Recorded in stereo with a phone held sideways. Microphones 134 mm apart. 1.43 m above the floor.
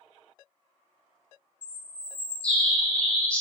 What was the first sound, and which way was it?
A bird, 10° left (ahead or behind).